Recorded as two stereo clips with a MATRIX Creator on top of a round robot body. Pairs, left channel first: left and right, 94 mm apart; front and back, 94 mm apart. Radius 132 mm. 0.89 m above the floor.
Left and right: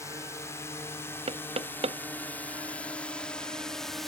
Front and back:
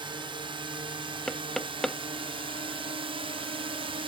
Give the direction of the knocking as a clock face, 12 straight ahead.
3 o'clock.